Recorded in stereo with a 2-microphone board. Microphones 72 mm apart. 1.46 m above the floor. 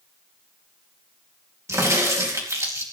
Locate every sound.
1.7 s a crack: 45° right (ahead or behind), 2.5 m